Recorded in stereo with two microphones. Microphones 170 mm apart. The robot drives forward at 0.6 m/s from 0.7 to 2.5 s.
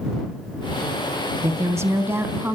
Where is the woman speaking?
15° right (ahead or behind), 1.0 m.